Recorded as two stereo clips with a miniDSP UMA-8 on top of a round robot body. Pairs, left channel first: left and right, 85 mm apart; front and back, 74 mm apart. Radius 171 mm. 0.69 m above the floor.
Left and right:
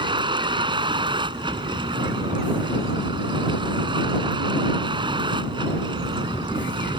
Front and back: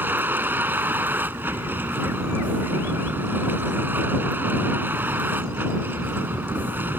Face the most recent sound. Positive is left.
turn(degrees=-115)